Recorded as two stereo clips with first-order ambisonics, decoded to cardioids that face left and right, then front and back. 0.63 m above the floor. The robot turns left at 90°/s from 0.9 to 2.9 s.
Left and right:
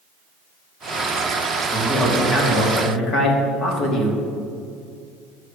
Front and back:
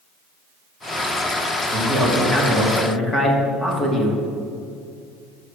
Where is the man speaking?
Straight behind, 1.2 m; by 4.2 s 75° left, 1.2 m.